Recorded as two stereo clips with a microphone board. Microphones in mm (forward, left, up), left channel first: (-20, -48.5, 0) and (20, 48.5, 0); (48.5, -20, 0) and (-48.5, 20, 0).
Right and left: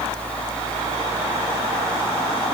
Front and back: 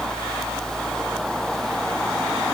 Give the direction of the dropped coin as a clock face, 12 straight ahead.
I don't hear a dropped coin.